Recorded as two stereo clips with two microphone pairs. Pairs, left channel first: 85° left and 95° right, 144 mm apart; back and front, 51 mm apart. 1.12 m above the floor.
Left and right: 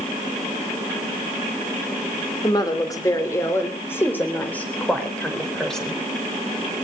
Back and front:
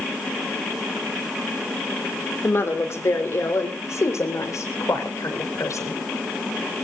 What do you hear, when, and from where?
2.4 s a woman speaking: 145° left, 4 m; by 6.0 s 170° left, 5.5 m